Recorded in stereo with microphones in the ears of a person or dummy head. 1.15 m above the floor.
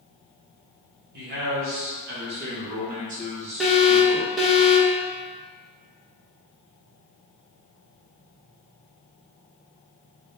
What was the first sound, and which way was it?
A man speaking, 50° right (ahead or behind).